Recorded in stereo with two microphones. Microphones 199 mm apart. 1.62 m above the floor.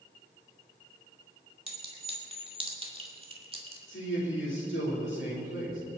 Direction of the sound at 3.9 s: 80° left.